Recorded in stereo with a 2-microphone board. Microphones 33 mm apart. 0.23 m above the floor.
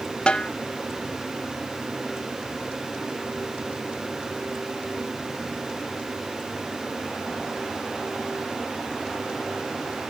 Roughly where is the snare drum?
Left.